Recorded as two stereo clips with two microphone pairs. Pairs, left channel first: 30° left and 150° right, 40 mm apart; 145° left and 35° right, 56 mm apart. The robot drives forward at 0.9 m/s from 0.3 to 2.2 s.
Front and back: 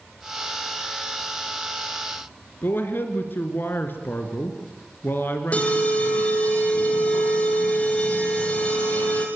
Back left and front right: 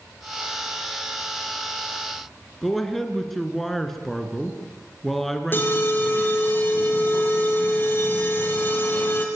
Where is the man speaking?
55° left, 3 m.